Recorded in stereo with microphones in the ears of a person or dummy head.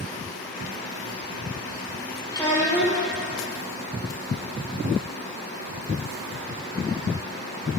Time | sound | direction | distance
2.3 | a child speaking | 20° left (ahead or behind) | 1.6 m